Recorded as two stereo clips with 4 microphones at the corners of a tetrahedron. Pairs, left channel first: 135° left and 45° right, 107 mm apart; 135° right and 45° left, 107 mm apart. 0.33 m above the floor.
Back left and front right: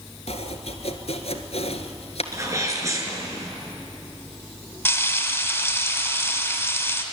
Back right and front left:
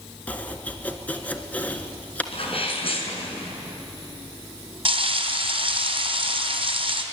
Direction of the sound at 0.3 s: 150° left.